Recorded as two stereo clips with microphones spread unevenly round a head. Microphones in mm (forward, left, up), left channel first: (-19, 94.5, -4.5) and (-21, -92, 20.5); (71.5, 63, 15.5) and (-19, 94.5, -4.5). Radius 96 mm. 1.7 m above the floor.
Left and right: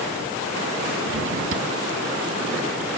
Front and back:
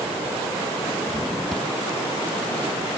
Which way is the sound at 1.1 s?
105° right.